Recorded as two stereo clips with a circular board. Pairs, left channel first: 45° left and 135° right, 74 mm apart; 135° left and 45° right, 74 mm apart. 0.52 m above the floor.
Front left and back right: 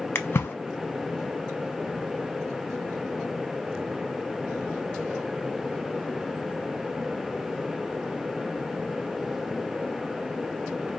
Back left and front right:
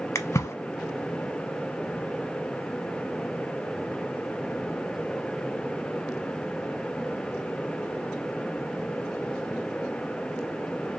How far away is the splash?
About 0.5 m.